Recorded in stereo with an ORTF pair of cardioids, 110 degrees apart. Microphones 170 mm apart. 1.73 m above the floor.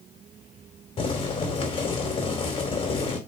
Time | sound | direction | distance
1.0 | boiling | 35° left | 4 m